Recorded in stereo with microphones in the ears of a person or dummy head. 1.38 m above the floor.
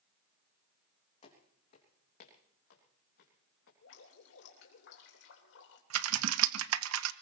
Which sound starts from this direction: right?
Typing on a keyboard, at 5.9 s.